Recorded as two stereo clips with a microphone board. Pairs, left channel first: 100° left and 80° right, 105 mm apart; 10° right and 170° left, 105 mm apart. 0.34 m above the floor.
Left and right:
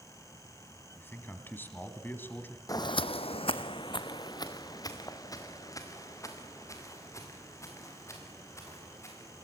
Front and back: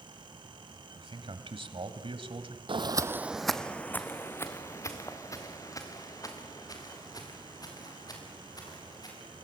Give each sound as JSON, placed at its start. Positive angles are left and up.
{"t": 0.9, "sound": "a man speaking", "azimuth_deg": 165, "distance_m": 2.0}
{"t": 2.7, "sound": "footsteps", "azimuth_deg": 150, "distance_m": 0.8}